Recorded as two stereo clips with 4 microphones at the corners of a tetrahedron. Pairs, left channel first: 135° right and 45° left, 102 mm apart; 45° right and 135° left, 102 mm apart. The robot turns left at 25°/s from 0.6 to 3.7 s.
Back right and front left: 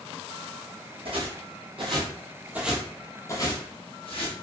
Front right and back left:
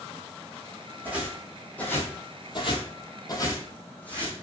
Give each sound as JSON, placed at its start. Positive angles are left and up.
{"t": 1.1, "sound": "footsteps", "azimuth_deg": 65, "distance_m": 1.1}